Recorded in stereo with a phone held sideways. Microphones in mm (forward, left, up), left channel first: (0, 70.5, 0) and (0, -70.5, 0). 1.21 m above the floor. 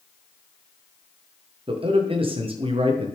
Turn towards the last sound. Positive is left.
turn(degrees=-40)  # may be behind; listen again after turning